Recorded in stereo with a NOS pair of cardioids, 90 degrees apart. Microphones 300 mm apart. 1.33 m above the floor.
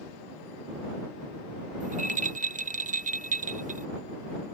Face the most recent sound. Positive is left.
turn(degrees=-25)